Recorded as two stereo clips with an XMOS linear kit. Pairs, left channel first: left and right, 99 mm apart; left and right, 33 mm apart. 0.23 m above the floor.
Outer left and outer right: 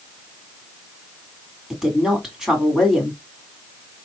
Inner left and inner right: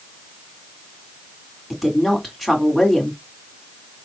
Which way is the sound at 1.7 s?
5° right (ahead or behind).